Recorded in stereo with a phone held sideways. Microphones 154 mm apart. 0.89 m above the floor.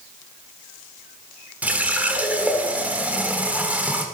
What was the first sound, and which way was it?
A running tap, 10° right (ahead or behind).